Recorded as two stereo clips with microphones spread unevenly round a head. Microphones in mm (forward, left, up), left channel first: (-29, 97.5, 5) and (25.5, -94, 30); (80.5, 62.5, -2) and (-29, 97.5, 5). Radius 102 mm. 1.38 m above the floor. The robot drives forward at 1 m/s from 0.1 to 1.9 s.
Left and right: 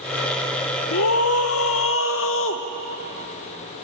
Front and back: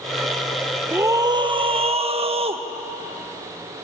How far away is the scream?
About 1.3 m.